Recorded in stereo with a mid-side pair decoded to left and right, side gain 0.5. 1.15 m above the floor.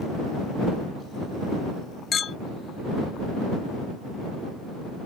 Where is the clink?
50° left.